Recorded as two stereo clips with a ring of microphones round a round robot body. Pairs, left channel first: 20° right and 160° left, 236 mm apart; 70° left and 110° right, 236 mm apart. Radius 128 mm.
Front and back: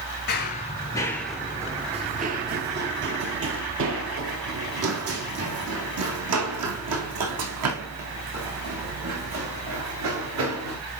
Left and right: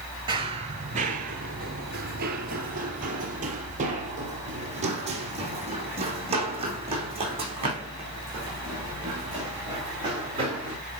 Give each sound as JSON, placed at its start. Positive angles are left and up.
{"t": 0.3, "sound": "running footsteps", "azimuth_deg": -50, "distance_m": 1.0}